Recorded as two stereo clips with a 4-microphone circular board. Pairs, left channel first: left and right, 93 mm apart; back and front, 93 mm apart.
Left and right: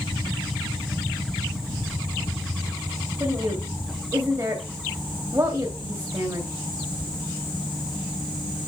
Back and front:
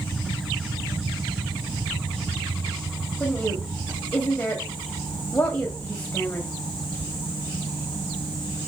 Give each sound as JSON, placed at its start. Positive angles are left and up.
{"t": 3.2, "sound": "a woman speaking", "azimuth_deg": -115, "distance_m": 1.9}